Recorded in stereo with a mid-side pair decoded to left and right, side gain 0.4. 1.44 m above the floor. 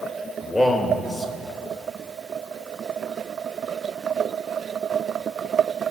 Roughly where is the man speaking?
Ahead left.